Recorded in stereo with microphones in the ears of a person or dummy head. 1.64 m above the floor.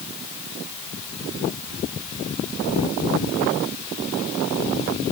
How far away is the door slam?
No door slam in this recording.